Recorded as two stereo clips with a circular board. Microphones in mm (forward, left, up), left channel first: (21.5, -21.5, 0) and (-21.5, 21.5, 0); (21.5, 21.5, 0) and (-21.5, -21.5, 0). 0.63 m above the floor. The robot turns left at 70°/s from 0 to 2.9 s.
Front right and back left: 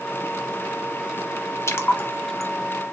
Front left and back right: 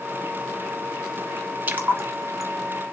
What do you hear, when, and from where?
1.7 s a splash: 75° right, 0.7 m; by 2.5 s 135° right, 0.7 m